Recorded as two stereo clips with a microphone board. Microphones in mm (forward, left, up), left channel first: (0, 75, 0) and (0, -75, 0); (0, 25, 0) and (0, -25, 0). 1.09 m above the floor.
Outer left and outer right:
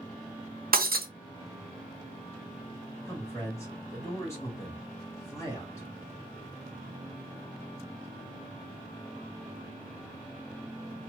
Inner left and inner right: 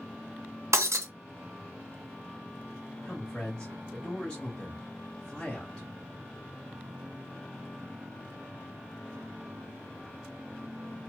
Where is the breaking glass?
75° right (ahead or behind), 0.6 m.